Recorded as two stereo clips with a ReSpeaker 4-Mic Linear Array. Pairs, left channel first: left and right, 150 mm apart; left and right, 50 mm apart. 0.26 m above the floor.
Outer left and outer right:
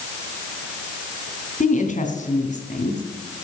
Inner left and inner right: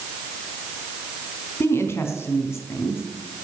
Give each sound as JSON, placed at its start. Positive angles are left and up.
{"t": 1.6, "sound": "a woman speaking", "side_deg": 55, "distance_m": 2.5}